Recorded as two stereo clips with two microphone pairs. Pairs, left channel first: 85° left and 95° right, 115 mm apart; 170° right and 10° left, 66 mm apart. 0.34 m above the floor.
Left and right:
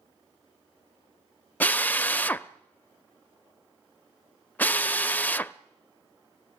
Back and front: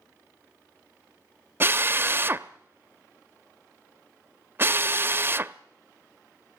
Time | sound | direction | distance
1.6 | a drill | 25° left | 0.5 m